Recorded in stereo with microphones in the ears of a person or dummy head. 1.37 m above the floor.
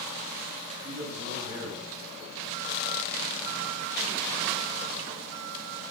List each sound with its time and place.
0.8 s a man speaking: 45° right (ahead or behind), 8.5 m